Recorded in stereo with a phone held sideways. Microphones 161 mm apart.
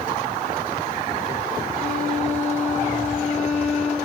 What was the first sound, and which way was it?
A violin, 65° right (ahead or behind).